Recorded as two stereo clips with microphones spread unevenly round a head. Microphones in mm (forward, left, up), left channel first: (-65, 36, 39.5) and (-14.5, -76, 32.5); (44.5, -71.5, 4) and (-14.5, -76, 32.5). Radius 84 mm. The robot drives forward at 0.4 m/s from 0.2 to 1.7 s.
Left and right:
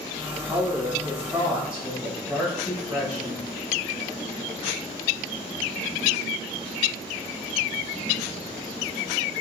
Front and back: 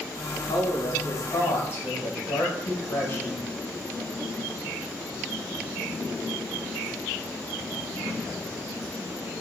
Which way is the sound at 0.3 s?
10° left.